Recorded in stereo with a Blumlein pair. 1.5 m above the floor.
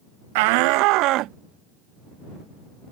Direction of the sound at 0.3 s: 50° right.